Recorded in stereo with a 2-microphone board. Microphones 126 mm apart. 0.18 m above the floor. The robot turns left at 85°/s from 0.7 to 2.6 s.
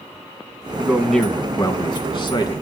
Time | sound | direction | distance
0.8 | a man speaking | 155° right | 1.6 m